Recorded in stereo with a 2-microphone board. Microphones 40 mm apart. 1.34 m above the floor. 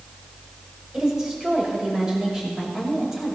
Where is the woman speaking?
20° right (ahead or behind), 6 m.